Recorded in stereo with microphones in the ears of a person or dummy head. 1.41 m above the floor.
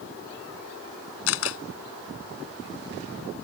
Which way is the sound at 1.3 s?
75° left (ahead or behind).